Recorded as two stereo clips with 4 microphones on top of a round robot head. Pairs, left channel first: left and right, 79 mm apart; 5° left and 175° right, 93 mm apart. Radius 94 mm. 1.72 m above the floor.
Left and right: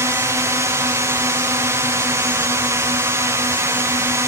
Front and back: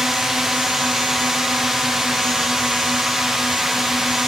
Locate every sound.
0.0 s a drone: 95° right